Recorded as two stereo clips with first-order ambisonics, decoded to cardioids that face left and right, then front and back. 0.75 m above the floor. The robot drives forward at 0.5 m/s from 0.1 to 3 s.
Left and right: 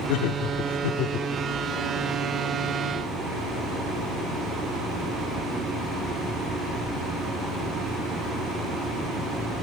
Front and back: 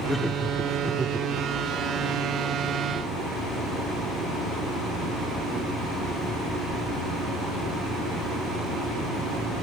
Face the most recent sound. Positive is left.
turn(degrees=135)